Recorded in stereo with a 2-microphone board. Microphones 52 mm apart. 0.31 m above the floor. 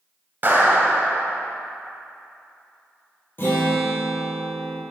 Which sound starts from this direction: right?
A clap, at 0.4 s.